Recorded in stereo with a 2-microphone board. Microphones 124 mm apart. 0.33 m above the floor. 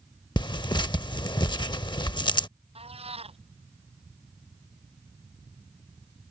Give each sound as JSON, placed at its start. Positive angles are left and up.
{"t": 0.4, "sound": "tearing paper", "side_deg": 35}
{"t": 2.8, "sound": "a cat meowing", "side_deg": -55}